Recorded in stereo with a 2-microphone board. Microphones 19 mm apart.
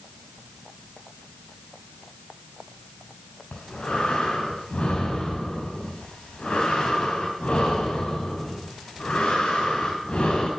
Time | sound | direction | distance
3.5 | breathing | 75° left (ahead or behind) | 5 m